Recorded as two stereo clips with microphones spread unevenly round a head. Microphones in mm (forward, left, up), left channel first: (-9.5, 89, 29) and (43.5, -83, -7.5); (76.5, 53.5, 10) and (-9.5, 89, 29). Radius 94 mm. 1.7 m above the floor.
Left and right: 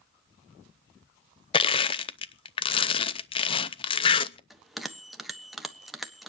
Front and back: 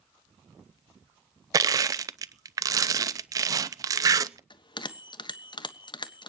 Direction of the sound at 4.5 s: 15° left.